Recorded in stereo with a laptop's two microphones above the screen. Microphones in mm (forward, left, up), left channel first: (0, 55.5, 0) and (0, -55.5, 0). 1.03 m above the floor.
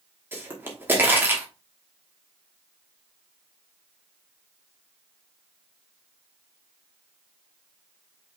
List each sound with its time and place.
0.3 s a pop: 20° right (ahead or behind), 1.1 m